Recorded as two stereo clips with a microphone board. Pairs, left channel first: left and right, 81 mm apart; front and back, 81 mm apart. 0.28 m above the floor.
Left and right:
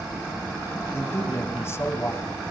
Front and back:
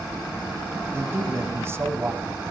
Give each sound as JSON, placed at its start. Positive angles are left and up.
{"t": 0.9, "sound": "a man speaking", "azimuth_deg": 135, "distance_m": 1.5}